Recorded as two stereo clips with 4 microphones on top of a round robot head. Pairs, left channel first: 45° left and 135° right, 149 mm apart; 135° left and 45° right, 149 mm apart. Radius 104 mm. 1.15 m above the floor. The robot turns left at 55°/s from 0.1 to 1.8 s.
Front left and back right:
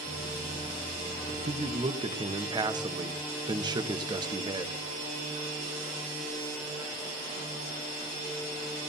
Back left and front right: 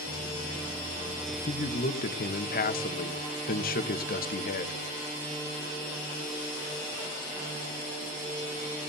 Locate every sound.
1.3 s a man speaking: 170° right, 1.1 m; by 4.8 s 160° left, 1.1 m